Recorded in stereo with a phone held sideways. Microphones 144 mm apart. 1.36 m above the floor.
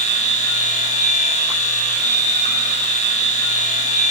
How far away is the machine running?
About 1.1 m.